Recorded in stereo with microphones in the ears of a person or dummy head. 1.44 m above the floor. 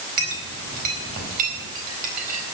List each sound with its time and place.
0.2 s a clink: 45° right (ahead or behind), 4.5 m